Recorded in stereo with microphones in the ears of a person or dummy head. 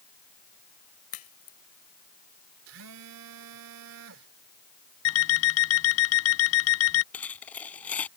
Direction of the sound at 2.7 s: 75° right (ahead or behind).